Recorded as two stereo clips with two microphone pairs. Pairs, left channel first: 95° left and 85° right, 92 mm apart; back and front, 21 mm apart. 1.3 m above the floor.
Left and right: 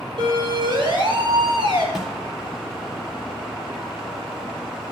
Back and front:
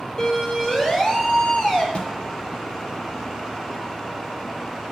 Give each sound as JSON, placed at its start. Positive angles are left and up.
{"t": 0.2, "sound": "a siren", "azimuth_deg": -115, "distance_m": 7.5}
{"t": 1.9, "sound": "a snare drum", "azimuth_deg": -175, "distance_m": 3.5}